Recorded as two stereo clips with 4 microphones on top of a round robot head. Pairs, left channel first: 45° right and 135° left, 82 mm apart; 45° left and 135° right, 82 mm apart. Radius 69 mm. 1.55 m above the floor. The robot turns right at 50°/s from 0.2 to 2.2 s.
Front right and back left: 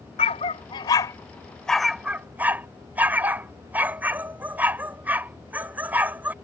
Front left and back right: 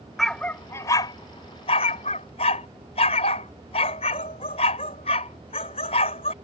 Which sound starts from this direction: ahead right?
A dog barking, at 0.2 s.